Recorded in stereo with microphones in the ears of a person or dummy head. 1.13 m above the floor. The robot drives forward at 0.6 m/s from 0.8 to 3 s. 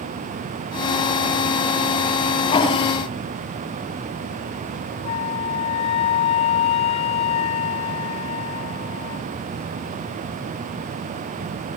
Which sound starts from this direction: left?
A flute, at 5.0 s.